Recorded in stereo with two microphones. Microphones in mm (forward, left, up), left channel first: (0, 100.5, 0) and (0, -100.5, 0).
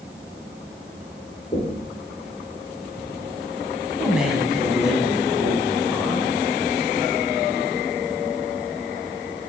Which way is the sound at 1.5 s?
30° left (ahead or behind).